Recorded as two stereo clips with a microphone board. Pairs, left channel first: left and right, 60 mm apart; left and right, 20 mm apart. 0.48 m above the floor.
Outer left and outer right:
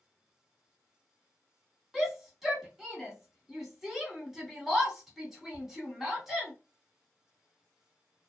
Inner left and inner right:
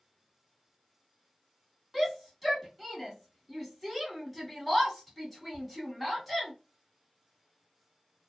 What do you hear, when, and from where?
1.9 s a shout: 5° right (ahead or behind), 1.2 m